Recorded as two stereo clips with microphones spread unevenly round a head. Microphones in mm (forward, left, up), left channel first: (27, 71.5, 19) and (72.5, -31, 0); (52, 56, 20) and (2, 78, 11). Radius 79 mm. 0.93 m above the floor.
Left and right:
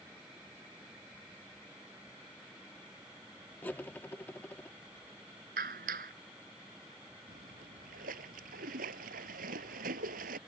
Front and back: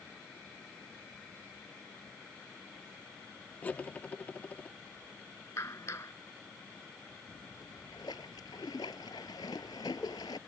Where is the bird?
No bird in this recording.